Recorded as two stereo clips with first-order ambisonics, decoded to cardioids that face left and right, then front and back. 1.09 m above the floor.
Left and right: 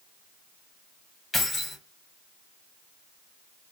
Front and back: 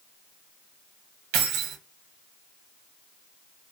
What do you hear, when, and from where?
1.3 s keys jangling: 160° left, 0.6 m